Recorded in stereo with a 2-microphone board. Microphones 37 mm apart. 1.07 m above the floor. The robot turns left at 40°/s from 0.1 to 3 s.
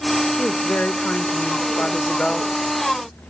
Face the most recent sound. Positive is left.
turn(degrees=-5)